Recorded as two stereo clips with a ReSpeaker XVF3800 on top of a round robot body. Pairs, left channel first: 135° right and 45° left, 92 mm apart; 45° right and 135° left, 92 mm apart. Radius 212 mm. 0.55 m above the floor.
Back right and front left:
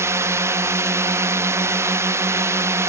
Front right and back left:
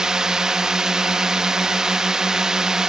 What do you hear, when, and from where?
0.0 s a drone: 60° left